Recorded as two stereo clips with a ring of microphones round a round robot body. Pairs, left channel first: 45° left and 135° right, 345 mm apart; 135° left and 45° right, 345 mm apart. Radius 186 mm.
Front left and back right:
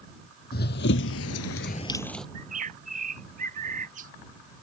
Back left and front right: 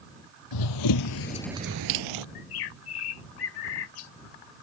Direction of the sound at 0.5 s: 110° left.